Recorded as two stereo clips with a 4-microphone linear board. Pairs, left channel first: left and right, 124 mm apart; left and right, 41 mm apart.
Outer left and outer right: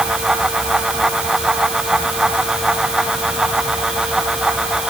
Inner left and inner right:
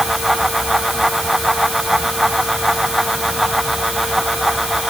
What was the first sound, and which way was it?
Only background noise.